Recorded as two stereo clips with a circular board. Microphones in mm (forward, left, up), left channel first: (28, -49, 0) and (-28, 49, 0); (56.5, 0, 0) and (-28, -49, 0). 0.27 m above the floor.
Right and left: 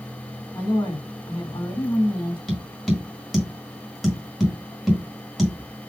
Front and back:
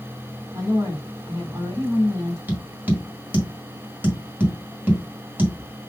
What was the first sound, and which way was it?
A woman speaking, 105° right.